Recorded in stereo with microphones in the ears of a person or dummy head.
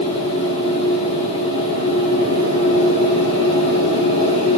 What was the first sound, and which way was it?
A machine running, 45° left (ahead or behind).